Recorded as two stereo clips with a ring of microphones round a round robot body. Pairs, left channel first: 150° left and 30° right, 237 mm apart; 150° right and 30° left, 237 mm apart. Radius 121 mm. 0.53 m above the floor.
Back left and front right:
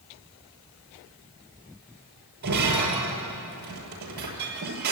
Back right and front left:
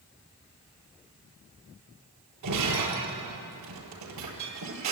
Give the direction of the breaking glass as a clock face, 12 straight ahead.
11 o'clock.